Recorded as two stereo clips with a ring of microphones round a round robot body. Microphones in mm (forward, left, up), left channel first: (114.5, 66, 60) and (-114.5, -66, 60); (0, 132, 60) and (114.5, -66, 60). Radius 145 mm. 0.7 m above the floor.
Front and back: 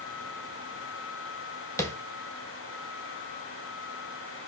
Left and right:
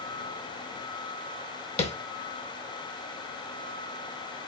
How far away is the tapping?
About 1.0 m.